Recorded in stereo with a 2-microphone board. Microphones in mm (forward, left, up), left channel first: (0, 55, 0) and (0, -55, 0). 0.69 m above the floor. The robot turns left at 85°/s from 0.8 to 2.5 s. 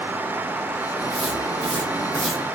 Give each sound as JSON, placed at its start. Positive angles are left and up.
{"t": 1.0, "sound": "footsteps", "side_deg": 55, "distance_m": 2.5}